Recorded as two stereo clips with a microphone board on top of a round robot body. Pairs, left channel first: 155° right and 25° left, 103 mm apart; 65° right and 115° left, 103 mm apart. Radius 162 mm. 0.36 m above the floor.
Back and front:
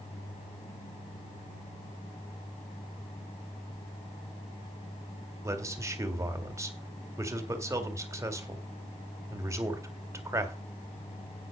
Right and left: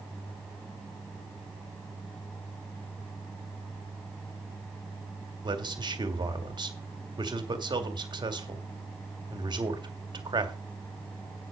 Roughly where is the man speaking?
Left.